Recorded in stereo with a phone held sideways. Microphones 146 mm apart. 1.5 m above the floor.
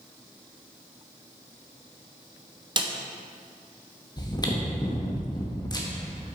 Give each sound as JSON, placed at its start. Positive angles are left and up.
{"t": 2.8, "sound": "a snare drum", "side_deg": -30, "distance_m": 0.6}
{"t": 4.2, "sound": "chewing", "side_deg": 30, "distance_m": 0.9}